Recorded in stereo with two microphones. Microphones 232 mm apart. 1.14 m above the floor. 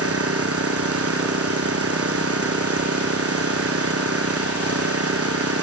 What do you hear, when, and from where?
0.0 s an engine running: 80° right